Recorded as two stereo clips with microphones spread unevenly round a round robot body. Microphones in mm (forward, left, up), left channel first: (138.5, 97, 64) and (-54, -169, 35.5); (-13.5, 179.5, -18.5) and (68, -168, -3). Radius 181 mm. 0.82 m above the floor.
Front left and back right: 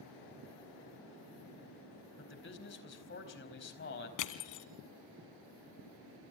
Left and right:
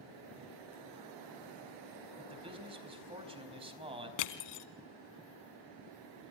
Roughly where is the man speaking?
Ahead.